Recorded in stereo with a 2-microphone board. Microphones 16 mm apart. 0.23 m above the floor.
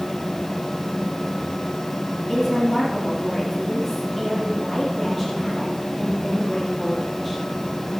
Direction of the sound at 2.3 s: 35° left (ahead or behind).